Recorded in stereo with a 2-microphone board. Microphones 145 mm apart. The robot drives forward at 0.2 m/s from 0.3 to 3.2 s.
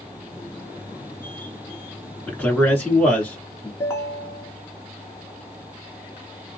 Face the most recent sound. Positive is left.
turn(degrees=15)  # may be behind; listen again after turning